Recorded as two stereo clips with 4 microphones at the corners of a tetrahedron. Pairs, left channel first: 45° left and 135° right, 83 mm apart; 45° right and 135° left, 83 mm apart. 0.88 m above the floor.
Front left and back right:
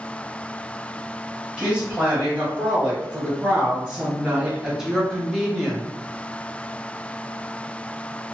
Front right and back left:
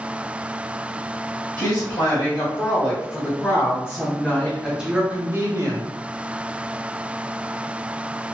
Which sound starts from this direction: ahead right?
A woman speaking, at 1.6 s.